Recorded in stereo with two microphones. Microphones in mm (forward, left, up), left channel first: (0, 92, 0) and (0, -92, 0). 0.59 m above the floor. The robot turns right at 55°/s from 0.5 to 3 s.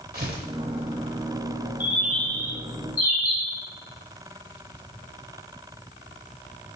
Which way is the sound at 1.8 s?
10° right.